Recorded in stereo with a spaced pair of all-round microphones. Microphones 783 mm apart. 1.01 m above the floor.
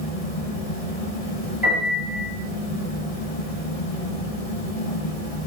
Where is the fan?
50° left (ahead or behind), 0.7 m.